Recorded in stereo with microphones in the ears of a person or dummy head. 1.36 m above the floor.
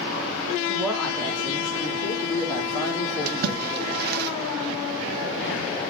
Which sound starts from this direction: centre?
A woman speaking, at 0.7 s.